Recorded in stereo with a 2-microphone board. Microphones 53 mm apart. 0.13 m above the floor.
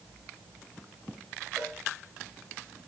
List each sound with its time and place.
1.6 s a cowbell: 15° right (ahead or behind), 5 m